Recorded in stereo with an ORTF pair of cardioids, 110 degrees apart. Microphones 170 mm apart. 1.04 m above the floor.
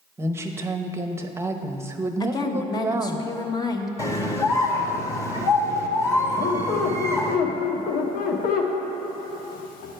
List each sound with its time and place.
0.2 s a woman speaking: 15° right, 0.9 m
2.2 s a woman speaking: 25° left, 1.0 m
4.0 s a scream: 20° left, 1.6 m
6.4 s a squeak: 60° left, 1.2 m